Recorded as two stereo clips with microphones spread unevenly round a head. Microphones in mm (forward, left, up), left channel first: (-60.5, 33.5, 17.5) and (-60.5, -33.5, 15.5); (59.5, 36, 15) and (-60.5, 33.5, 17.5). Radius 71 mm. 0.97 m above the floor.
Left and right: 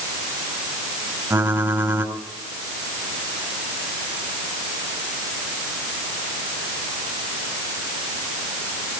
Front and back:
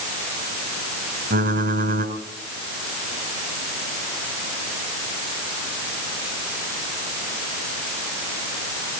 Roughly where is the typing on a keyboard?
Behind right.